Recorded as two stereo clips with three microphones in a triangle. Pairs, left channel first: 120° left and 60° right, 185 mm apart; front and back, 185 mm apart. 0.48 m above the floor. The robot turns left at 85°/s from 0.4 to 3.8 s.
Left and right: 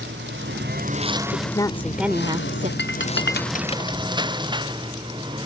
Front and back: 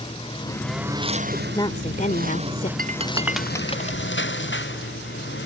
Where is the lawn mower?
60° right; by 5.5 s 5° left.